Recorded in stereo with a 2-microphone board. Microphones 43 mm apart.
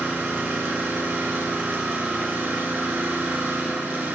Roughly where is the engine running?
Right.